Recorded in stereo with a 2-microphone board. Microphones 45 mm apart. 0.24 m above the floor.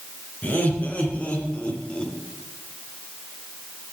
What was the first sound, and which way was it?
Laughter, 35° left (ahead or behind).